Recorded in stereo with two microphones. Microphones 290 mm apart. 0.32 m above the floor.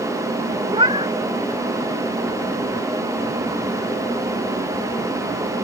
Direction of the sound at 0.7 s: 20° right (ahead or behind).